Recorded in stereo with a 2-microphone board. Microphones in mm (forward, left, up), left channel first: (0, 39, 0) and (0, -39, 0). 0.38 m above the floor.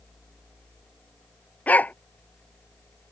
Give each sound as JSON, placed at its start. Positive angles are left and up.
{"t": 1.7, "sound": "a dog barking", "side_deg": 20}